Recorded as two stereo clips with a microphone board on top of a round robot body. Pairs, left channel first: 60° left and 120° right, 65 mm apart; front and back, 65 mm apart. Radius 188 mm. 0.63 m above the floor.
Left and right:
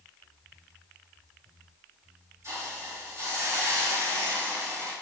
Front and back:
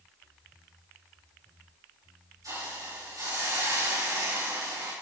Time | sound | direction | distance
2.4 | a hiss | 160° right | 7 m